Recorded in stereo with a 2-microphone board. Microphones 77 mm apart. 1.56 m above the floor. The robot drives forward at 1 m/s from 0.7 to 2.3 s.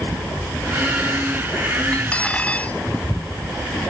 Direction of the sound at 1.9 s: 15° left (ahead or behind).